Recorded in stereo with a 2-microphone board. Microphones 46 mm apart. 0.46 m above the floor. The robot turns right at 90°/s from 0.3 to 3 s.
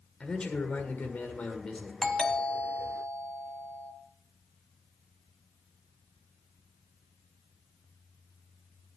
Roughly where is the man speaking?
Ahead.